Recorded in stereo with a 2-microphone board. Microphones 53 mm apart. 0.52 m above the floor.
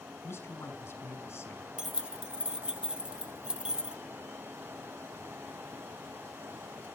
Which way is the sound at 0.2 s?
50° left (ahead or behind).